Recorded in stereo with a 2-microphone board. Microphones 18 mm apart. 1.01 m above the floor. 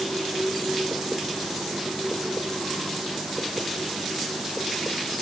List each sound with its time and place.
Only background noise.